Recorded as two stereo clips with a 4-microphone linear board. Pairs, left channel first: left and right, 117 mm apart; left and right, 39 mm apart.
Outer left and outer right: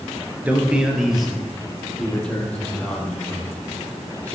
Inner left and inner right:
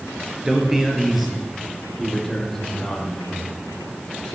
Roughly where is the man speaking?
Centre.